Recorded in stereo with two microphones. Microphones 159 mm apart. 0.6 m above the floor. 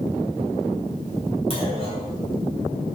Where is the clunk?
35° left (ahead or behind), 1.8 m.